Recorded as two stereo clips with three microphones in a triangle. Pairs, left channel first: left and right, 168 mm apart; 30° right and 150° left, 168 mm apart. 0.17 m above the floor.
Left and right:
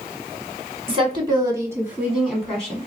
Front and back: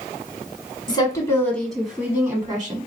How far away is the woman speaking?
About 1.3 m.